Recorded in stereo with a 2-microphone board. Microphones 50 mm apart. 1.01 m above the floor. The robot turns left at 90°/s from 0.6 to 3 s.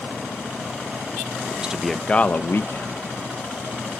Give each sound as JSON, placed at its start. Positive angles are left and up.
{"t": 1.5, "sound": "a man speaking", "azimuth_deg": -145, "distance_m": 0.8}